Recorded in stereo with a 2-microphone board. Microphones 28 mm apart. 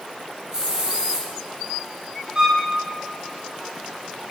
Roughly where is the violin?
Right.